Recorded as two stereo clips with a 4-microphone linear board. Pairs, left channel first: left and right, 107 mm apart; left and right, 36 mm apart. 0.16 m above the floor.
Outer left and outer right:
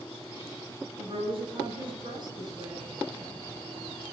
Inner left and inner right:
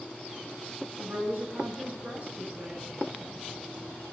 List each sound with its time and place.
1.0 s a woman speaking: 55° right (ahead or behind), 1.9 m; by 2.9 s 35° right (ahead or behind), 2 m